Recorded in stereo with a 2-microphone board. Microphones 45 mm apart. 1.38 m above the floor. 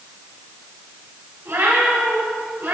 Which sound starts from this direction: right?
A cat meowing, at 1.4 s.